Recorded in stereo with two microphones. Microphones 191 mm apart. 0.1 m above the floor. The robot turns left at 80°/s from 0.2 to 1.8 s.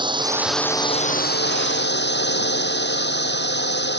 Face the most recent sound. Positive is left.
turn(degrees=80)